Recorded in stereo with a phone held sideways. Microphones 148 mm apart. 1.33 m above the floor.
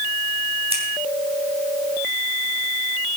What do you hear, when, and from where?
0.7 s scissors: 40° right (ahead or behind), 3.5 m